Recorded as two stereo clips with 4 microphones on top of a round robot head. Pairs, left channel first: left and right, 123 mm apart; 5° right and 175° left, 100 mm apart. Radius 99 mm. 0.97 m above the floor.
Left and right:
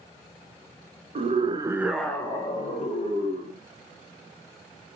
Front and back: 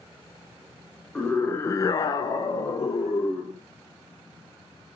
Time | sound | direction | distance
1.1 | a scream | 85° right | 0.7 m